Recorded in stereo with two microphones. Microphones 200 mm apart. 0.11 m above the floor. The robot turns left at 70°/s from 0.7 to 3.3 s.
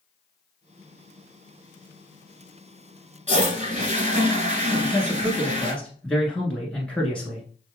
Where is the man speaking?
5° left (ahead or behind), 1.1 m.